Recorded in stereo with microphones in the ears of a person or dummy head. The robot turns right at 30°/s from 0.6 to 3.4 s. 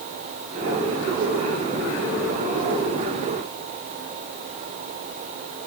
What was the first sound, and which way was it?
Only background noise.